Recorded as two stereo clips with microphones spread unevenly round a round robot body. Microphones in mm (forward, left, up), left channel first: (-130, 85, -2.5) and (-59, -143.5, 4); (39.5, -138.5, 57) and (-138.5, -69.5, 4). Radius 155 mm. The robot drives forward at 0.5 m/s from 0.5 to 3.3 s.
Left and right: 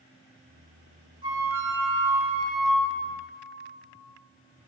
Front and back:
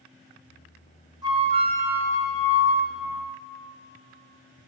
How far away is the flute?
About 0.8 m.